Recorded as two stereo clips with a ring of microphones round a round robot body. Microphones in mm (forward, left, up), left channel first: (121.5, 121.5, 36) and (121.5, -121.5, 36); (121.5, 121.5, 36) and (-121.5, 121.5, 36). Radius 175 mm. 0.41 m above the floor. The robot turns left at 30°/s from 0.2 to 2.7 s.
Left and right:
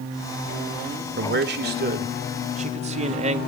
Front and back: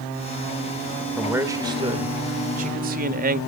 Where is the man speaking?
95° right, 1.5 m; by 3.4 s 145° right, 1.5 m.